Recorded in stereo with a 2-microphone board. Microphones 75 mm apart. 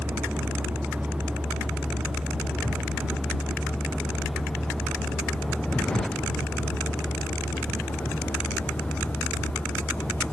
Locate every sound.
0.0 s a vehicle: 20° right (ahead or behind); by 10.3 s 20° left (ahead or behind)